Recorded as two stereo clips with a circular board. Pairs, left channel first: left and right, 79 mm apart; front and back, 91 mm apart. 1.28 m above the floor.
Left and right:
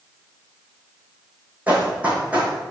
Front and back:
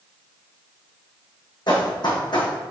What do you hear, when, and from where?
1.7 s running footsteps: 20° right, 2.5 m